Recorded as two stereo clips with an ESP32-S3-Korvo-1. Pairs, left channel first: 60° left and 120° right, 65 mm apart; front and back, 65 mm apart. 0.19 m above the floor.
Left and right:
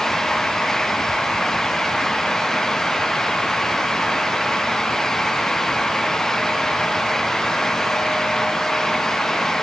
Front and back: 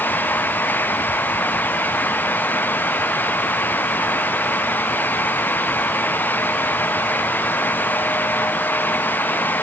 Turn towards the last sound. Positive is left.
No sound to turn to.